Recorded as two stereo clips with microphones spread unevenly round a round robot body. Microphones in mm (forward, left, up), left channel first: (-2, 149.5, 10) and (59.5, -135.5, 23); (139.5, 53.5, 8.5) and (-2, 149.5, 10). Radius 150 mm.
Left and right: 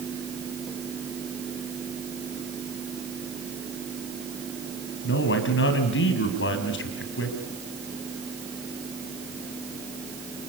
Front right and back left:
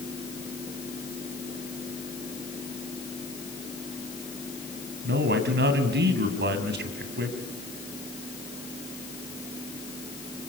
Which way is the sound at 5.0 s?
150° left.